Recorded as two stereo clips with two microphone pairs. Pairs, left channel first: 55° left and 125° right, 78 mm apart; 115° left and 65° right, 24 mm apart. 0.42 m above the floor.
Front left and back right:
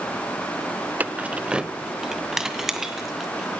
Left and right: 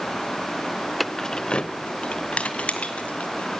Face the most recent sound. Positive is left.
turn(degrees=150)